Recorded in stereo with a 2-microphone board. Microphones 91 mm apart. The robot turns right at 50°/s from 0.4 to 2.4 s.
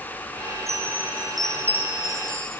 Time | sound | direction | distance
0.7 | a chime | 35° right | 8 m